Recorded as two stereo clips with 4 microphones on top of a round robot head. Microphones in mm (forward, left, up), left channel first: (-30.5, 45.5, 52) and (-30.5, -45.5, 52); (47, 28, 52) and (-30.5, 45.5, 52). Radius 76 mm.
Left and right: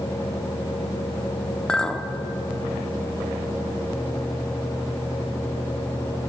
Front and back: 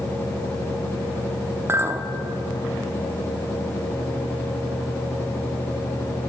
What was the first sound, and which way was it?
A clink, 165° left.